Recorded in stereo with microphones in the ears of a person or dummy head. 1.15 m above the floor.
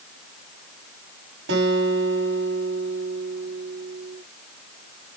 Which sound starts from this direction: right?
A guitar, at 1.5 s.